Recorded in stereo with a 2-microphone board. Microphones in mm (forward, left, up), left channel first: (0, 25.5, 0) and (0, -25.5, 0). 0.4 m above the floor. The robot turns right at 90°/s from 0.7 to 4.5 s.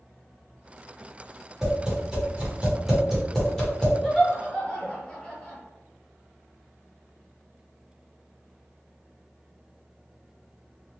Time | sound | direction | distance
1.6 | tapping | 10° right (ahead or behind) | 1.2 m
4.0 | laughter | 5° left (ahead or behind) | 0.8 m